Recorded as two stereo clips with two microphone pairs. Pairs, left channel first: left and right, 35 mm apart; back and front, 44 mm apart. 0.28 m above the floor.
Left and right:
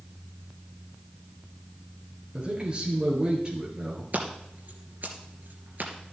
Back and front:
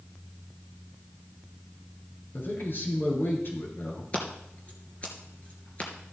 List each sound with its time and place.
2.3 s a man speaking: 155° right, 5 m
4.1 s scissors: 125° right, 2.5 m